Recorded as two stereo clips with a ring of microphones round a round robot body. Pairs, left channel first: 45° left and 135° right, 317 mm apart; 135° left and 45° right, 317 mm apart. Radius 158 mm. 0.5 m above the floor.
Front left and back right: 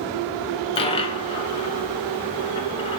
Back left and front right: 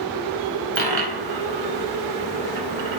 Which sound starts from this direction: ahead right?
A dropped coin, at 0.8 s.